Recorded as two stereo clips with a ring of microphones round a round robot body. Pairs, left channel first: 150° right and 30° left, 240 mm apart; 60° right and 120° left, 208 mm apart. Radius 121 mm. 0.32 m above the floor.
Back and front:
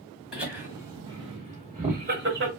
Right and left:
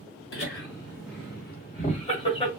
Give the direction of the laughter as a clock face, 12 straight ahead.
2 o'clock.